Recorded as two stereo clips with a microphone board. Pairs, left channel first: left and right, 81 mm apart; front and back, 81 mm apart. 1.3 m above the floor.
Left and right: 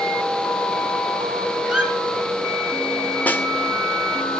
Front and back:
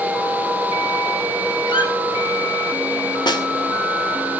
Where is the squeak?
10° right, 7.5 m.